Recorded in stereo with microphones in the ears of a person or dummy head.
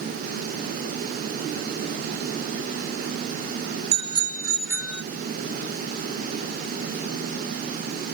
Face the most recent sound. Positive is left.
turn(degrees=-5)  # may be behind; listen again after turning